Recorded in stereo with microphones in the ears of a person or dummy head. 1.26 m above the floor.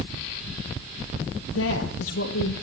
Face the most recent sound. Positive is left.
turn(degrees=85)